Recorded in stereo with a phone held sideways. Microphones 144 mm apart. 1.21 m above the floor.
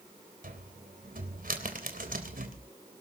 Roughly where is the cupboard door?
Right.